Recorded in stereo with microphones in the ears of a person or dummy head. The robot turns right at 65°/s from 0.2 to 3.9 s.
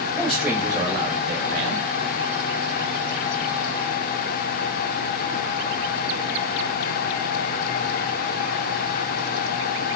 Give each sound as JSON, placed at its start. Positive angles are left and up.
{"t": 0.1, "sound": "a man speaking", "azimuth_deg": 170, "distance_m": 2.0}